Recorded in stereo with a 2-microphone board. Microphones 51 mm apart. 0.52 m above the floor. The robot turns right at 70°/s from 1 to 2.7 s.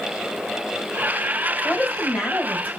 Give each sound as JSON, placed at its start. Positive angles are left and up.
{"t": 1.6, "sound": "a woman speaking", "azimuth_deg": 150, "distance_m": 2.5}